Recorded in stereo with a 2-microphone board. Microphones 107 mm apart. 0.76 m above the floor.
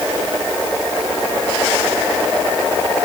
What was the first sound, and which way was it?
Only background noise.